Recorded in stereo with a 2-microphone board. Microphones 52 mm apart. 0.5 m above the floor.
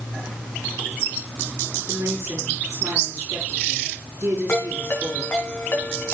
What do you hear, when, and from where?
1.9 s a woman speaking: 70° right (ahead or behind), 5.5 m
4.5 s a ringtone: 45° left (ahead or behind), 3.5 m